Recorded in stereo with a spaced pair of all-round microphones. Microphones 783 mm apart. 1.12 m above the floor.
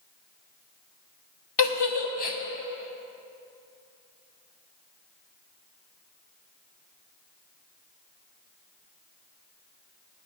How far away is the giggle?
About 0.8 m.